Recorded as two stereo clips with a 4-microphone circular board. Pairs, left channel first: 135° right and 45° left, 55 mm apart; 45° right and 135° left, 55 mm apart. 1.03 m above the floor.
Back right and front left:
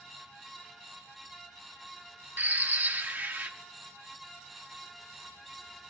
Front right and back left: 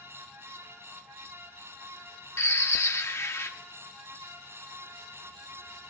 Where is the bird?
10° right, 1.2 m.